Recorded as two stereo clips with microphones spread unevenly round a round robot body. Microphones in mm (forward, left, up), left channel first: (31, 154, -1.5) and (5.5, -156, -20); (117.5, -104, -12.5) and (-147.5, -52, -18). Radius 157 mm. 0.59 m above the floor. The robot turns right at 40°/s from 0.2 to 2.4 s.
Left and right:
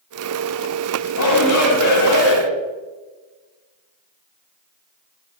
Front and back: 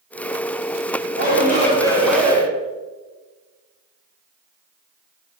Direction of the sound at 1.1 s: 40° left.